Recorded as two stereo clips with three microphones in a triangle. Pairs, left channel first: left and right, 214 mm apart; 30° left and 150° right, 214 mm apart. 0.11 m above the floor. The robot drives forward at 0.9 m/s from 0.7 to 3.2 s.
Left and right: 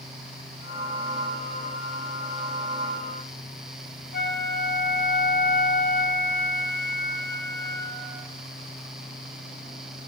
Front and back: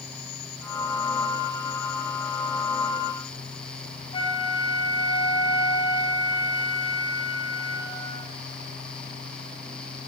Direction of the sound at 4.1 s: 85° left.